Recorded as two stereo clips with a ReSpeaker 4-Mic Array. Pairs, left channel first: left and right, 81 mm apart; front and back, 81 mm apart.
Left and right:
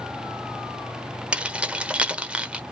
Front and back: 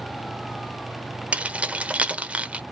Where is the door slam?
I don't hear a door slam.